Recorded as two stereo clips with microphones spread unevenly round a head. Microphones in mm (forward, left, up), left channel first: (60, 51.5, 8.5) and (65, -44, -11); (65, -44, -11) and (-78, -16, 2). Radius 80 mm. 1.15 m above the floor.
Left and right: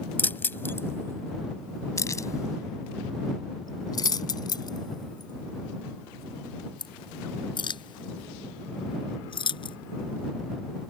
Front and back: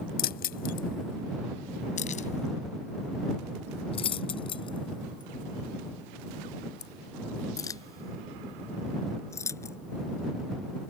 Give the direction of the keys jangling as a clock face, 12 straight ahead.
11 o'clock.